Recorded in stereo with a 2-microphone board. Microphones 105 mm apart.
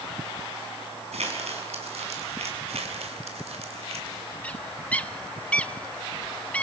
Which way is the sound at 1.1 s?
80° right.